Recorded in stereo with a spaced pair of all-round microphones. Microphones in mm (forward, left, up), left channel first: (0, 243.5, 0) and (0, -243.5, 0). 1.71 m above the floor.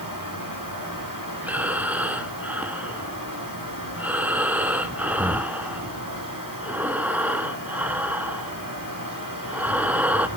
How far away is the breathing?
About 1.2 m.